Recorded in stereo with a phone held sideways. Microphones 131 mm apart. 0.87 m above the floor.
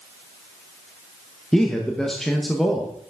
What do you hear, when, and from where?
1.5 s a man speaking: 5° left (ahead or behind), 0.8 m